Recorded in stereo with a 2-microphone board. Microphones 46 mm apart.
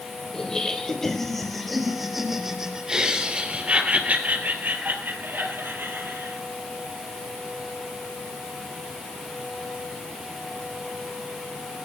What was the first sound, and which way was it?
Laughter, 15° left (ahead or behind).